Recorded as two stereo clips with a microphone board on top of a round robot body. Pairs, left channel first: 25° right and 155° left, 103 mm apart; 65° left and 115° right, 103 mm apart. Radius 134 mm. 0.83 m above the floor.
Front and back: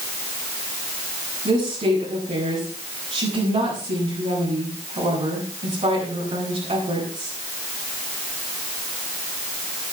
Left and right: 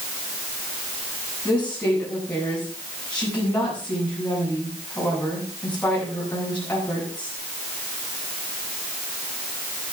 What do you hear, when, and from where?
1.4 s a woman speaking: 145° left, 8.5 m